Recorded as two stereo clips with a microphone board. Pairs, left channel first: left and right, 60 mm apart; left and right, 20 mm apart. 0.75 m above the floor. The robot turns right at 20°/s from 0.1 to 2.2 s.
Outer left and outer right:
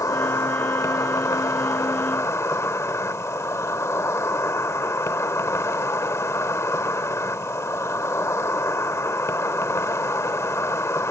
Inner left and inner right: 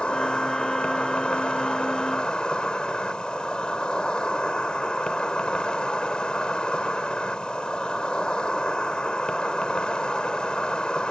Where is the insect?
80° left; by 11.1 s 120° left.